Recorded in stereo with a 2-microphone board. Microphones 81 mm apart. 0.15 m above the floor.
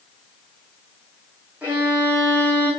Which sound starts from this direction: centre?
A violin, at 1.6 s.